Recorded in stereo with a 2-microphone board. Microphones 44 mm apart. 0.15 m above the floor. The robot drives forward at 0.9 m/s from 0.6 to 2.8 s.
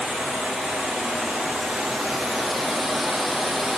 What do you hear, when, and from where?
0.0 s running water: centre (ahead or behind), 4.5 m